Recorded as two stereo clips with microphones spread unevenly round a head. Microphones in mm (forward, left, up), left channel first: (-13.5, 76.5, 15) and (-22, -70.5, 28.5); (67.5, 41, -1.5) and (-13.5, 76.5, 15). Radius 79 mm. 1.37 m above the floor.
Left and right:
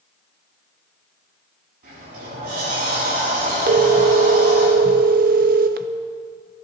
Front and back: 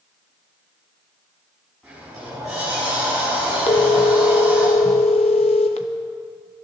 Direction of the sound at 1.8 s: 115° right.